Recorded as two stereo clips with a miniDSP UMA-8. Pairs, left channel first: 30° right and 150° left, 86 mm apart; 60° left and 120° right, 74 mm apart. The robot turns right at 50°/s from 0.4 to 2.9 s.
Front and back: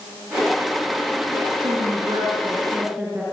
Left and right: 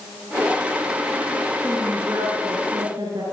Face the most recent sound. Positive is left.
turn(degrees=-135)